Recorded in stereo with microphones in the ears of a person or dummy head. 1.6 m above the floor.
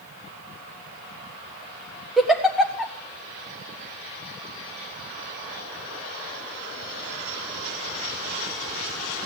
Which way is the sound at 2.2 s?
Centre (ahead or behind).